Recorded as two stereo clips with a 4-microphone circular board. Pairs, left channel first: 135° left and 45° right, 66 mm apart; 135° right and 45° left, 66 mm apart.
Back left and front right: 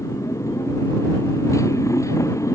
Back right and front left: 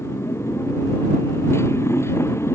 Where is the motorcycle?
175° left.